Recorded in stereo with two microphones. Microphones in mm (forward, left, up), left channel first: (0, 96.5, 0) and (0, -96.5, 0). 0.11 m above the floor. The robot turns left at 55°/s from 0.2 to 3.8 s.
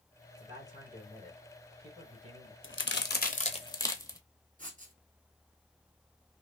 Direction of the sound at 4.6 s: 40° right (ahead or behind).